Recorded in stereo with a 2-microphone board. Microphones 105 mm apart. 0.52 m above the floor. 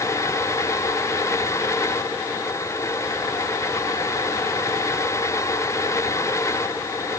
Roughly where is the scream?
I don't hear a scream.